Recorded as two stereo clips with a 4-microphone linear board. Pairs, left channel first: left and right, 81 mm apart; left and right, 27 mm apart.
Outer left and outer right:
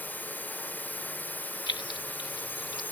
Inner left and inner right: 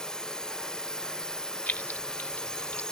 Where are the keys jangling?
70° left (ahead or behind).